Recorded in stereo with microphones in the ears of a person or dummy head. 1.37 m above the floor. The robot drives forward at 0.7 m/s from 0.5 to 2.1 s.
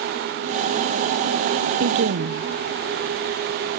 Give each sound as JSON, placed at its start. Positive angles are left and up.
{"t": 1.8, "sound": "a woman speaking", "side_deg": -55, "distance_m": 0.8}